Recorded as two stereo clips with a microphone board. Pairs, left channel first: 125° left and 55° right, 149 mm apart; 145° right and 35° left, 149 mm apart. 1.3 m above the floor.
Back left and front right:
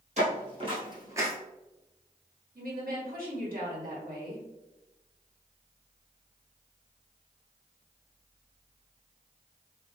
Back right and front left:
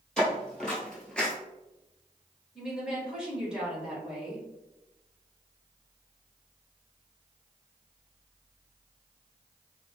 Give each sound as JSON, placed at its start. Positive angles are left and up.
{"t": 0.2, "sound": "footsteps", "azimuth_deg": -60, "distance_m": 2.0}
{"t": 2.5, "sound": "a woman speaking", "azimuth_deg": -50, "distance_m": 1.6}